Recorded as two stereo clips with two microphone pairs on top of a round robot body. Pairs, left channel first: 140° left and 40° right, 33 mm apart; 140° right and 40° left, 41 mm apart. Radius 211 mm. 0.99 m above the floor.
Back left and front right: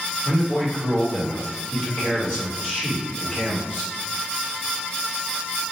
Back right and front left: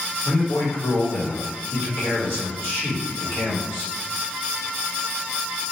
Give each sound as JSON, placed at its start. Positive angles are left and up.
{"t": 0.2, "sound": "a man speaking", "azimuth_deg": -160, "distance_m": 1.8}